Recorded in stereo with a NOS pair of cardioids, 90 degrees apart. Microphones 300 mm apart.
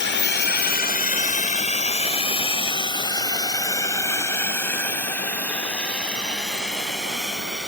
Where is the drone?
40° left; by 7.7 s straight ahead.